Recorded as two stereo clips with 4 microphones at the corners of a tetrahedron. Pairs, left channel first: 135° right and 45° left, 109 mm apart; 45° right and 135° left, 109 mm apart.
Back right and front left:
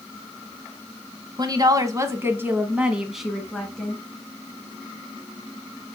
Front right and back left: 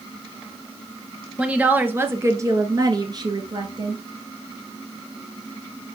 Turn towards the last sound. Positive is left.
turn(degrees=150)